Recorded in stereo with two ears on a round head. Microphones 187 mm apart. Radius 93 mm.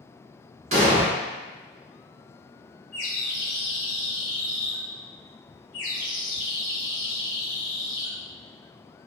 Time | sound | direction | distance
0.7 | an explosion | 30° right (ahead or behind) | 1.2 m
2.9 | a bird | 65° left (ahead or behind) | 1.5 m